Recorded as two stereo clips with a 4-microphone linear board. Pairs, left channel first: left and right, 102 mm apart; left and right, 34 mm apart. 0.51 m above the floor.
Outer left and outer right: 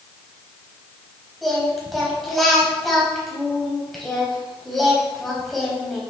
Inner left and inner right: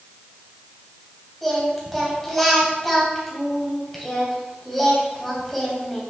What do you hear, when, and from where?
1.4 s singing: centre (ahead or behind), 3 m